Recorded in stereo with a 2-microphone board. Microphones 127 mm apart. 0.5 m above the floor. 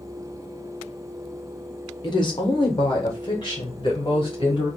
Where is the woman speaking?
35° left (ahead or behind), 0.8 m; by 4.7 s 40° left (ahead or behind), 2 m.